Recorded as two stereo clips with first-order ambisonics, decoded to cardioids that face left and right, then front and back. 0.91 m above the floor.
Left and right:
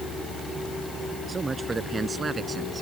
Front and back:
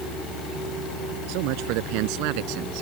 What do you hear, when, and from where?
1.3 s a man speaking: 165° right; by 2.8 s 160° right